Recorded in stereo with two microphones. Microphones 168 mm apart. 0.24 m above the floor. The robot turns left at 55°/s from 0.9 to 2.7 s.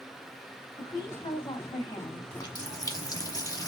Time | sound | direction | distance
0.8 | a woman speaking | 120° left | 1.8 m
2.3 | a running tap | 25° left (ahead or behind) | 0.8 m